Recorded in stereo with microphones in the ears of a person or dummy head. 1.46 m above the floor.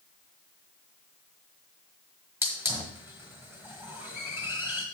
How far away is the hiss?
About 1.1 m.